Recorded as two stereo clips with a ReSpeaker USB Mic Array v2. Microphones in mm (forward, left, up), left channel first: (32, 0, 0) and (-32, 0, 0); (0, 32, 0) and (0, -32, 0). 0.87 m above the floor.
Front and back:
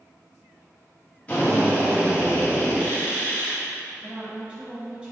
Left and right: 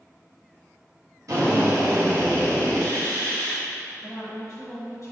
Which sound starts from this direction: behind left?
A woman speaking, at 4.0 s.